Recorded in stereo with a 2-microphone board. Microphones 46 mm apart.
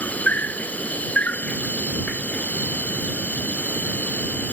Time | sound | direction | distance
0.0 | an insect | 35° left (ahead or behind) | ?